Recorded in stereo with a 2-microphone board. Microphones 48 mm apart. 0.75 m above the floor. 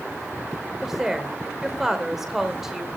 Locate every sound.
0.8 s a woman speaking: 10° right (ahead or behind), 2.5 m